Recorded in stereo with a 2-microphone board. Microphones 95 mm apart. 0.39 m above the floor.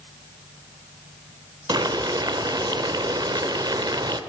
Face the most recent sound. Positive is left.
turn(degrees=-45)  # may be behind; listen again after turning